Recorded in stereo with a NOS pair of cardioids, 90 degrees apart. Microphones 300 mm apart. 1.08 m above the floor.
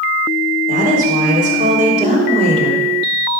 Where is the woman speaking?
30° right, 3.5 m; by 2.9 s 20° right, 2.5 m.